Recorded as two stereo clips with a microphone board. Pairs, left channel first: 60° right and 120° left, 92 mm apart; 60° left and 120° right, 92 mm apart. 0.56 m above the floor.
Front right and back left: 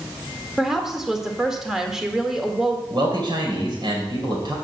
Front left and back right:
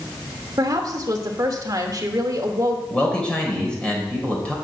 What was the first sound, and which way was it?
A woman speaking, 155° right.